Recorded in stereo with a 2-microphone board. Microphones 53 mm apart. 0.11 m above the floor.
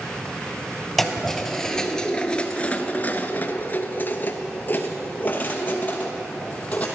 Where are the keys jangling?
5° left (ahead or behind), 1.5 m; by 6.9 s 30° left (ahead or behind), 2.5 m.